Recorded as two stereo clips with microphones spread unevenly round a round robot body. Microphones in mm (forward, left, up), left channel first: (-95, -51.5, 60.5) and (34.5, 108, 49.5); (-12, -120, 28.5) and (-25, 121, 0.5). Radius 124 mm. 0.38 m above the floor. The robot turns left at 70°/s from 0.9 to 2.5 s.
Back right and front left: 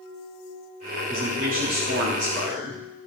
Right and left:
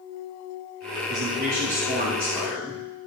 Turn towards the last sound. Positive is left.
turn(degrees=5)